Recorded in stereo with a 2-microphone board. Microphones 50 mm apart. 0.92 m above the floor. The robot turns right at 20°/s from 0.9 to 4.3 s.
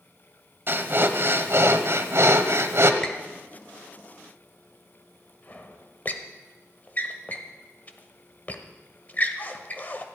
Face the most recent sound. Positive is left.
turn(degrees=35)  # may be behind; listen again after turning